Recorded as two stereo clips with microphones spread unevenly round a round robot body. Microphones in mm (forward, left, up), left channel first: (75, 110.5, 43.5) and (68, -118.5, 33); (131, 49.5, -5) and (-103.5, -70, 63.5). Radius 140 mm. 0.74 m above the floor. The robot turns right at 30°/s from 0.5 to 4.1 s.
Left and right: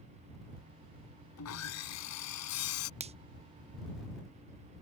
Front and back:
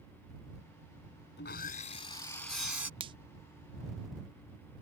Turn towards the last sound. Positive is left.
turn(degrees=-40)